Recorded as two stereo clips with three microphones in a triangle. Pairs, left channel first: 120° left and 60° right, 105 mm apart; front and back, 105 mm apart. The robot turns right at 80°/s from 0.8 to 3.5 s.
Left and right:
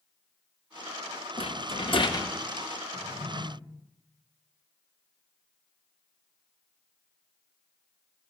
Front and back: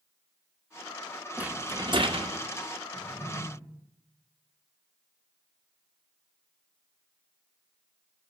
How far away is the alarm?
No alarm in this recording.